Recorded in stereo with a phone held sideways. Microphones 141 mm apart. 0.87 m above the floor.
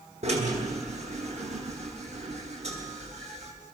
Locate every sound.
0.2 s a drill: 50° right (ahead or behind), 9.5 m